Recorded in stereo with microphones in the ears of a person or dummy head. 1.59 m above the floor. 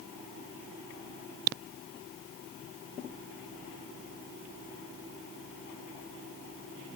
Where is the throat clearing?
I don't hear throat clearing.